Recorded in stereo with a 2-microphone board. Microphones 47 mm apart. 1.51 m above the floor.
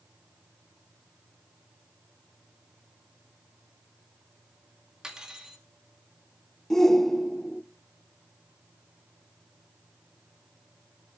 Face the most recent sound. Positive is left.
turn(degrees=10)  # may be behind; listen again after turning